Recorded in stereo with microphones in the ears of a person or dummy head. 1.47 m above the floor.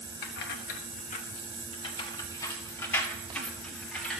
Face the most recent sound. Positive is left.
turn(degrees=5)  # may be behind; listen again after turning